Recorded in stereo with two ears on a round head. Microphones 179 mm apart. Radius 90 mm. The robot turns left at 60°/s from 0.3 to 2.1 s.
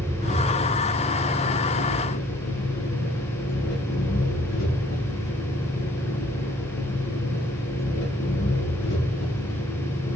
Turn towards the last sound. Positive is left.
turn(degrees=70)